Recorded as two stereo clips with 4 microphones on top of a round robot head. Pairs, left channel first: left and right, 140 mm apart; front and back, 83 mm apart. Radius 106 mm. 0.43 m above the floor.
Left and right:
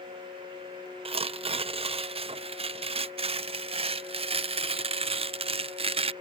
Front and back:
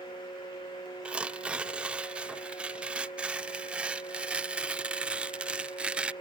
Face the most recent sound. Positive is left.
turn(degrees=-110)